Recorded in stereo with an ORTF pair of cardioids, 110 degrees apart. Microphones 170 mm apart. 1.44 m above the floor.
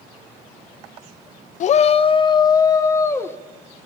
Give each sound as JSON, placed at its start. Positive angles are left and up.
{"t": 1.6, "sound": "a shout", "azimuth_deg": 50, "distance_m": 0.6}